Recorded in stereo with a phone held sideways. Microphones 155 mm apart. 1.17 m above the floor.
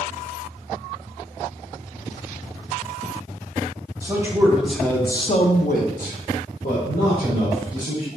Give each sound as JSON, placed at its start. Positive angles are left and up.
{"t": 4.0, "sound": "a man speaking", "side_deg": -20, "distance_m": 1.0}